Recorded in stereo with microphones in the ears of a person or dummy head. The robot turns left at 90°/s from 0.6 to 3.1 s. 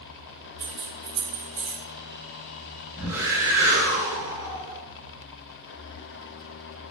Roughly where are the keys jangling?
Right.